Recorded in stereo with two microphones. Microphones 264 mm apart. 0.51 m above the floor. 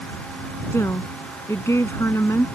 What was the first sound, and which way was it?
A woman speaking, 10° left (ahead or behind).